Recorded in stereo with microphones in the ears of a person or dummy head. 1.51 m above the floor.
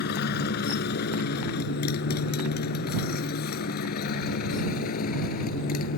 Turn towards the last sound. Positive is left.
turn(degrees=60)  # may be behind; listen again after turning